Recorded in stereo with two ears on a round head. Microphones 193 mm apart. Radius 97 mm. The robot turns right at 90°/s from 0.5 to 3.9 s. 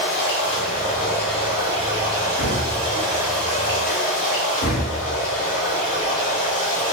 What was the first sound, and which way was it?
Running water, 100° left.